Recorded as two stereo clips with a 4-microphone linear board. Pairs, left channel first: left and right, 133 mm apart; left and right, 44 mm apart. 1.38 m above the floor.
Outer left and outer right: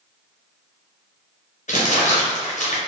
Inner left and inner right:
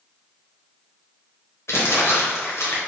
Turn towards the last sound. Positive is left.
turn(degrees=65)  # may be behind; listen again after turning